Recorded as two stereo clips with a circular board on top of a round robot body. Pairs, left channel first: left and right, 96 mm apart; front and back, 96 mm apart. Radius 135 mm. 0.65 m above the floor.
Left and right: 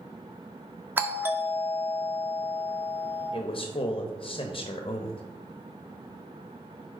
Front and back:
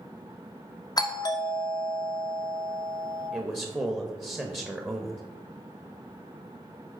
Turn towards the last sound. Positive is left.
turn(degrees=115)